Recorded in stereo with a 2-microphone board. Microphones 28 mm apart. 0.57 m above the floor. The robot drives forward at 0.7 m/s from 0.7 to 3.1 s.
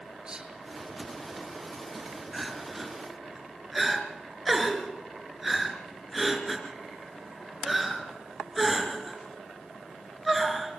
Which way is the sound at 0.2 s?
35° right (ahead or behind).